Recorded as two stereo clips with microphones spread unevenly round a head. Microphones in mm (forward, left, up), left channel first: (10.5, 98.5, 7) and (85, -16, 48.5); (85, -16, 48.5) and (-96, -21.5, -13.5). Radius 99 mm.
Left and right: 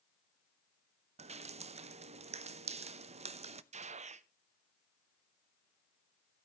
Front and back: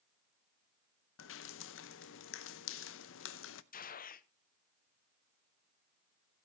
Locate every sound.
1.2 s dripping: 15° right, 0.7 m
3.7 s a gunshot: 35° right, 0.7 m